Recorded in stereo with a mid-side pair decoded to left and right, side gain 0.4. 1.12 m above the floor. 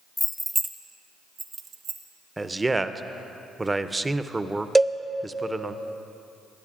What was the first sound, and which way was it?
Keys jangling, 10° left.